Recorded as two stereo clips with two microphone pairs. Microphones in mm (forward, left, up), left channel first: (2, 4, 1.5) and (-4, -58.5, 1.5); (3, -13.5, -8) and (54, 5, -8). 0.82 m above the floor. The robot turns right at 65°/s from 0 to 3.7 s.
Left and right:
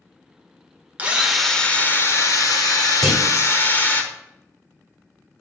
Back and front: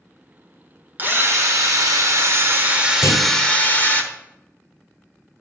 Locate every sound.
1.0 s a drill: 30° right, 1.1 m; by 4.0 s 145° left, 1.1 m
3.0 s a clunk: 175° left, 1.9 m; by 3.3 s 170° right, 1.9 m